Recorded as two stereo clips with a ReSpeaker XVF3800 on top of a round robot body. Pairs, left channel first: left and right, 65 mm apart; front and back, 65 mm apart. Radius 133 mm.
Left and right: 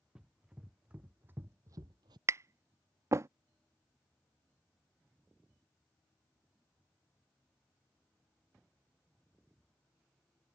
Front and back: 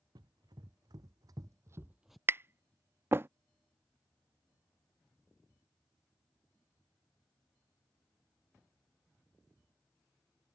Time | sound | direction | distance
0.1 | running footsteps | 170° right | ?
2.3 | tapping | 130° right | ?